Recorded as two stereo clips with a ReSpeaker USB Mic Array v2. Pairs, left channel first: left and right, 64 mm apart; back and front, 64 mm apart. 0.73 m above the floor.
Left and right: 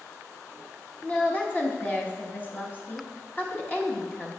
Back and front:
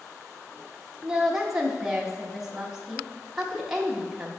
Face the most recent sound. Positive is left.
turn(degrees=80)